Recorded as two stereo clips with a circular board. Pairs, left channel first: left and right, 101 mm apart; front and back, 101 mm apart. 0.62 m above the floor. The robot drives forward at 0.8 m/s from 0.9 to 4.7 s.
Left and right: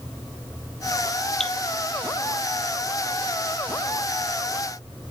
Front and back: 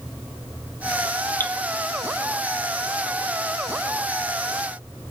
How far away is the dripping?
About 0.9 m.